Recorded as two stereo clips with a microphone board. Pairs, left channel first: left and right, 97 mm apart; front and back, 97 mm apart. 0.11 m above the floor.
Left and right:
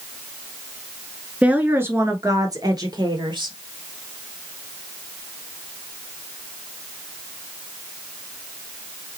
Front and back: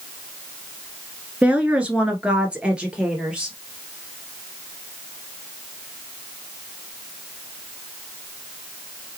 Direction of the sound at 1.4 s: 135° right.